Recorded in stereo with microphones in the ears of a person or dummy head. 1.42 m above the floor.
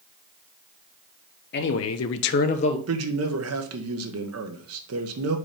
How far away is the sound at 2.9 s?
About 1.3 m.